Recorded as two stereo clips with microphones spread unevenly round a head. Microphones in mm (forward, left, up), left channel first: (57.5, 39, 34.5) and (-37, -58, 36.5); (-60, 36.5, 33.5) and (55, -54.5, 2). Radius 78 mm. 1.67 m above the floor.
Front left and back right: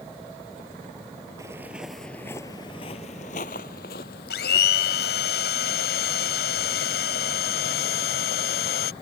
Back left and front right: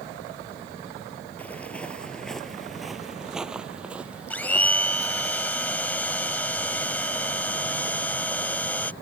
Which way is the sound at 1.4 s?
Straight behind.